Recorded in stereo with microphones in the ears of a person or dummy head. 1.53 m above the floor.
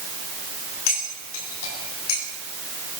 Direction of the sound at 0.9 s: 80° left.